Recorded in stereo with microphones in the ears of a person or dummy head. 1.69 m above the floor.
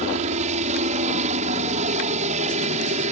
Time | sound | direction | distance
0.0 | a helicopter | 35° right (ahead or behind) | ?